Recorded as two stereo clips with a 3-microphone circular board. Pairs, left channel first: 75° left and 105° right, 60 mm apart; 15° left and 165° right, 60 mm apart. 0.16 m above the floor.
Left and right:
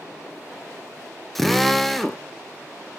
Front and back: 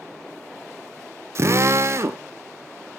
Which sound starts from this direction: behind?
A drill, at 1.4 s.